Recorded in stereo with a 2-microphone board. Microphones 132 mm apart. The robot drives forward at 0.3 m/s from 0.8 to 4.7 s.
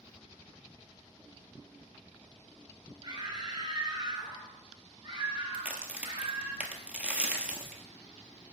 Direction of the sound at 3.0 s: 35° right (ahead or behind).